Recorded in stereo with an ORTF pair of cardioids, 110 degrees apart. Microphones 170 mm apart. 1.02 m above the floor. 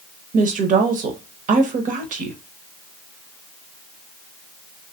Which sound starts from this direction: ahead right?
A woman speaking, at 0.3 s.